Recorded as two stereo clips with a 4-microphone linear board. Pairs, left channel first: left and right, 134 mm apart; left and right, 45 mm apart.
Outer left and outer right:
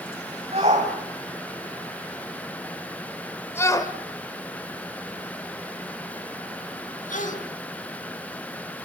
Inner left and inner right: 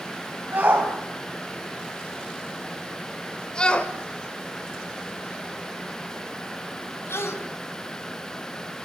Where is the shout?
55° right (ahead or behind), 3 m; by 7.3 s 75° left (ahead or behind), 4 m.